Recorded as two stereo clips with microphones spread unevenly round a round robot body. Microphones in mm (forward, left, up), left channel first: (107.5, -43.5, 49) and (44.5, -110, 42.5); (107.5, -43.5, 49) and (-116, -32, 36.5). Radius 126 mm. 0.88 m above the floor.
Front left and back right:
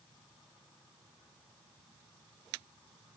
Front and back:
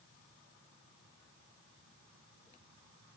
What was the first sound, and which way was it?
Only background noise.